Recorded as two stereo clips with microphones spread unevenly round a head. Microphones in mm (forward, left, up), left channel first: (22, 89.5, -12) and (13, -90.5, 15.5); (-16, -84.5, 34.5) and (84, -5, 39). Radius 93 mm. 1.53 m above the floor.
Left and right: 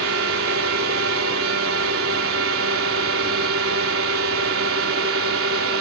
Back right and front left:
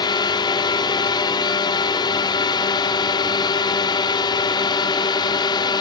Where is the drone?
85° right.